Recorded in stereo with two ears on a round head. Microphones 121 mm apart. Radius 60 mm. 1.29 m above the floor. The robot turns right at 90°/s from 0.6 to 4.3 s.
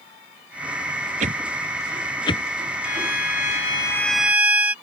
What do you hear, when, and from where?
1.2 s a whoosh: 60° right (ahead or behind); by 2.4 s 50° left (ahead or behind)
2.8 s a violin: 60° left; by 4.7 s 170° right